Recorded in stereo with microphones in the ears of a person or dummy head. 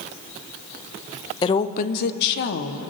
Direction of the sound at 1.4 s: 25° left (ahead or behind).